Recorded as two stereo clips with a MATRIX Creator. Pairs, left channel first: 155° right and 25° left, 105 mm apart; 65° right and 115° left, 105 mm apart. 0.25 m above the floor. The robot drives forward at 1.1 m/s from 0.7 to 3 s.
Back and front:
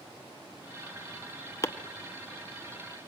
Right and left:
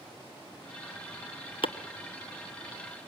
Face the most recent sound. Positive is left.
turn(degrees=-150)